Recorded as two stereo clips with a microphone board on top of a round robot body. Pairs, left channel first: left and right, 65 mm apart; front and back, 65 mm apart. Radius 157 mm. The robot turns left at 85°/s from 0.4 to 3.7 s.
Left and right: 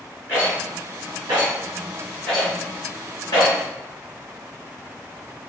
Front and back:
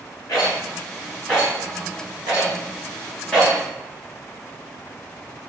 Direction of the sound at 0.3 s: 30° right.